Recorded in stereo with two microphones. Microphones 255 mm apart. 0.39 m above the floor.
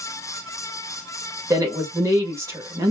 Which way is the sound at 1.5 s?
10° right (ahead or behind).